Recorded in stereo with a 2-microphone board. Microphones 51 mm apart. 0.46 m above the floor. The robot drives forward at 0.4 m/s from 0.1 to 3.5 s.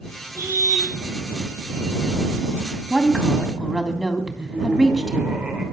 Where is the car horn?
80° right, 8.5 m; by 0.9 s 75° right (ahead or behind), 8.5 m.